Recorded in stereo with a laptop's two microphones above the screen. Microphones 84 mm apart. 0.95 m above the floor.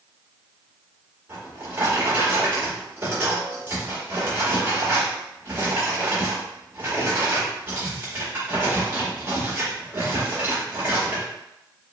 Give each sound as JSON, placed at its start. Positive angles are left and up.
{"t": 1.3, "sound": "a drawer", "side_deg": -30, "distance_m": 1.9}